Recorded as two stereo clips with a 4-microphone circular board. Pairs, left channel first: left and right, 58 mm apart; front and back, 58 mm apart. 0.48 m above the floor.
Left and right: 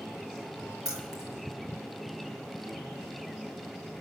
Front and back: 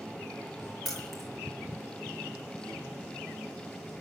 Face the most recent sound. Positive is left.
turn(degrees=-85)